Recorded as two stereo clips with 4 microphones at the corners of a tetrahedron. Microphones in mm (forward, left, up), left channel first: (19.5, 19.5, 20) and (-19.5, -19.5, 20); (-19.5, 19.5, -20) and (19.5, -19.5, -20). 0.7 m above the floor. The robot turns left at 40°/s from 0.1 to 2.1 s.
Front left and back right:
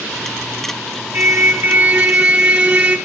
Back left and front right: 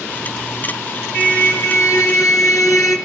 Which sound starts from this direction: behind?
A car horn, at 1.1 s.